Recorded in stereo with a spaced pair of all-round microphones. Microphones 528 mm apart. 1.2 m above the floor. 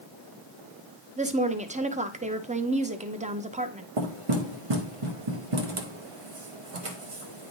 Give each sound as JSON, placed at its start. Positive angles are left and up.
{"t": 1.2, "sound": "a woman speaking", "side_deg": -15, "distance_m": 0.6}
{"t": 4.0, "sound": "knocking", "side_deg": -75, "distance_m": 1.0}